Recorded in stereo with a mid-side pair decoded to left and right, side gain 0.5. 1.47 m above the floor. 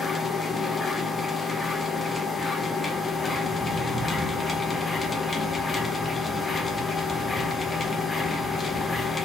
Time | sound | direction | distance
0.0 | a machine running | 25° left | 1.0 m